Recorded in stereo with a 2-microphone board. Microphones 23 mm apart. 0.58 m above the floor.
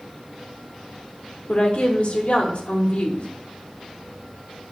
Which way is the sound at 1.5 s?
55° left (ahead or behind).